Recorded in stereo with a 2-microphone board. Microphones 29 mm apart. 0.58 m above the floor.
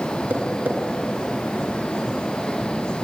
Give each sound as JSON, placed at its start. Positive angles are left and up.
{"t": 0.3, "sound": "tapping", "side_deg": -85, "distance_m": 4.0}